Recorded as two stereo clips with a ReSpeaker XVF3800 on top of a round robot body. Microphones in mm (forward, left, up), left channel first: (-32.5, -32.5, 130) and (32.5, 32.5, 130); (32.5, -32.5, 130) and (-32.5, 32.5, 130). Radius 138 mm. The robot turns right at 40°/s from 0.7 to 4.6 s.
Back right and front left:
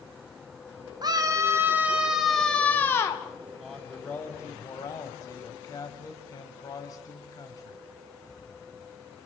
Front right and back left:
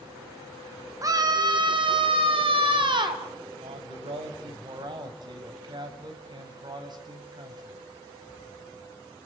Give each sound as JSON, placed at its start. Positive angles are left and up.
{"t": 1.0, "sound": "a scream", "azimuth_deg": 85, "distance_m": 2.5}
{"t": 3.6, "sound": "a man speaking", "azimuth_deg": 135, "distance_m": 4.5}